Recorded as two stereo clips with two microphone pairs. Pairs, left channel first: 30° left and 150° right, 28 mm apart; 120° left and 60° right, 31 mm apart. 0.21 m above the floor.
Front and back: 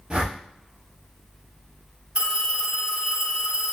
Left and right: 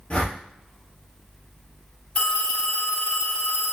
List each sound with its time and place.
0.1 s a whoosh: 160° left, 1.7 m
2.1 s a phone ringing: 160° left, 2 m